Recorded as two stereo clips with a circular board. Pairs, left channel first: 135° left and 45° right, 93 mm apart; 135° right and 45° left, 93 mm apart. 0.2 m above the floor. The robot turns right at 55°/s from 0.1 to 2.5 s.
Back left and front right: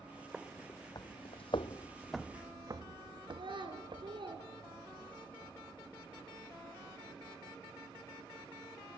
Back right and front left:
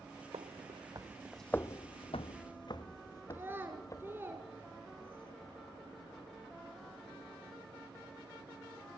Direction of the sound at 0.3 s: 35° left.